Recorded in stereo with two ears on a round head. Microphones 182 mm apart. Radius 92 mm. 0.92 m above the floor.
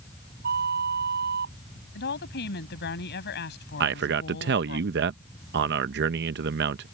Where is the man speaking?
55° right (ahead or behind).